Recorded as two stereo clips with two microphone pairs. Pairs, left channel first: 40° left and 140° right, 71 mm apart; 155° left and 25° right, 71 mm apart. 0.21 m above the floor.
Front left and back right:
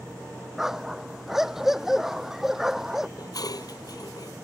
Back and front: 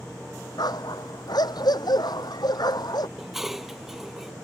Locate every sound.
0.6 s a dog barking: 135° left
3.2 s dishes clattering: 60° left